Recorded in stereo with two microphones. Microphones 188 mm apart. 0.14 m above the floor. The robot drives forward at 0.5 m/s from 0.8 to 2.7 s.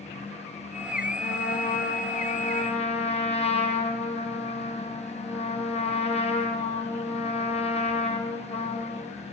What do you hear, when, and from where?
1.2 s a trumpet: 65° left (ahead or behind), 0.7 m; by 9.1 s 35° left (ahead or behind), 1.2 m